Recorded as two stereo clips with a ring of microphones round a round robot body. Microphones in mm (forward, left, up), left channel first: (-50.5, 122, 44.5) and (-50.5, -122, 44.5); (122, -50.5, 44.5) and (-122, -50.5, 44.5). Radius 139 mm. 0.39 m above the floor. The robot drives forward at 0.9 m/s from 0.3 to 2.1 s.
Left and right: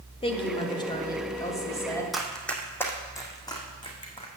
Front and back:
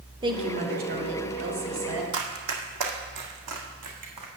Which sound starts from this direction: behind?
Running footsteps, at 2.1 s.